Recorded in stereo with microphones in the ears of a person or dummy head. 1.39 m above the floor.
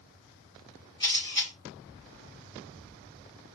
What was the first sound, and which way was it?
A camera shutter, 25° left (ahead or behind).